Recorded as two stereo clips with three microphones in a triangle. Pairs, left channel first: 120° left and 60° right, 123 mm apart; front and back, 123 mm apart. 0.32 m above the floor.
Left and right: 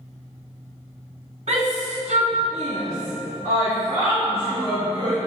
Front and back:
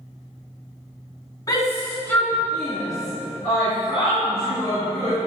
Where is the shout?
60° right, 2 m; by 5.2 s 105° right, 5 m.